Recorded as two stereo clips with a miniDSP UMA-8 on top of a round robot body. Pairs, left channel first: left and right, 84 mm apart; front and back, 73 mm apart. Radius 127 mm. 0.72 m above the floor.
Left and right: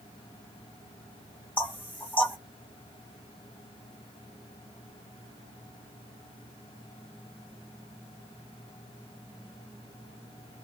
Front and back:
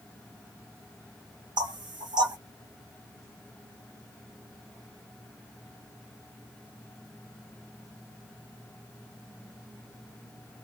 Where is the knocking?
160° left, 1.5 m.